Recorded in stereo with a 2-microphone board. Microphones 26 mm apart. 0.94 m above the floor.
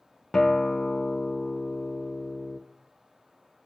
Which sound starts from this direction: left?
A guitar, at 0.3 s.